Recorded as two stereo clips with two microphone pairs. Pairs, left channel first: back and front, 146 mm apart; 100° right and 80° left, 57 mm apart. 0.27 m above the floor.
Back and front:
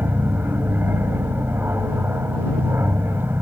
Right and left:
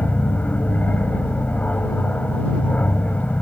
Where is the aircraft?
65° right; by 3.4 s 60° right.